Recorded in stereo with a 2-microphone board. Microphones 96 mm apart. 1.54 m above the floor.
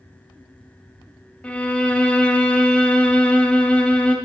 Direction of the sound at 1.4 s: 10° left (ahead or behind).